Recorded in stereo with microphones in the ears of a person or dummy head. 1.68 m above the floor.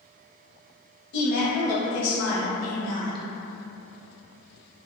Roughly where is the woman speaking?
Left.